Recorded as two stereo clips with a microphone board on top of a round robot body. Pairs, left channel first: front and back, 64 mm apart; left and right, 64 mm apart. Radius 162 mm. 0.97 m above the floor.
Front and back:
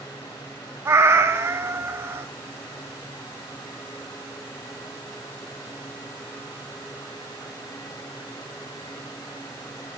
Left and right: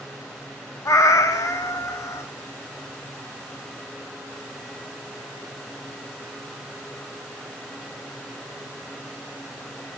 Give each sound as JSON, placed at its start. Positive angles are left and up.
{"t": 0.8, "sound": "a cat meowing", "azimuth_deg": 130, "distance_m": 0.6}